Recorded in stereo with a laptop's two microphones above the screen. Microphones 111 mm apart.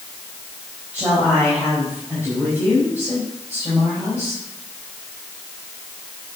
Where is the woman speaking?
15° right (ahead or behind), 4.5 m.